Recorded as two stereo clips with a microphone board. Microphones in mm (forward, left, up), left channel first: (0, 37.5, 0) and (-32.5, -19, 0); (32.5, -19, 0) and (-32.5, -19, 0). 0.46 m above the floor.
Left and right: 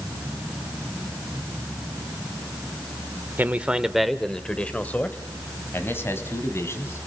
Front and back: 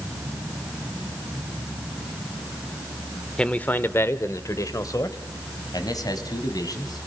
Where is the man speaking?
70° right, 1.1 m; by 7.1 s 15° left, 3.5 m.